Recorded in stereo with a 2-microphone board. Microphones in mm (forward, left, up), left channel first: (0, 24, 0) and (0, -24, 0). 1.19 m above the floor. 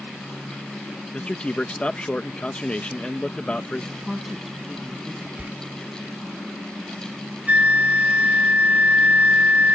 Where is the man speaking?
25° left (ahead or behind).